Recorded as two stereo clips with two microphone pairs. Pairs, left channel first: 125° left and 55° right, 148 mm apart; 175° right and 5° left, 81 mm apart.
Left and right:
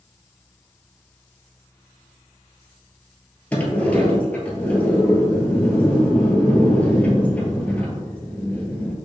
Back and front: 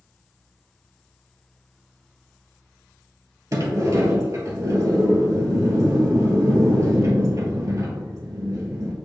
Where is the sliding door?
45° left, 1.0 m.